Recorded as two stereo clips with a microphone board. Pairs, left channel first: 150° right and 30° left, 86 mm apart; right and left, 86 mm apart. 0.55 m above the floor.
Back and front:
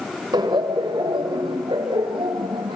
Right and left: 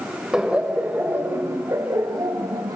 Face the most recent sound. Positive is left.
turn(degrees=50)